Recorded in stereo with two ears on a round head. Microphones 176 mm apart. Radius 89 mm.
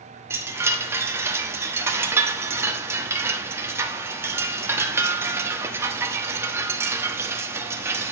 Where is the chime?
15° right (ahead or behind), 1.1 m.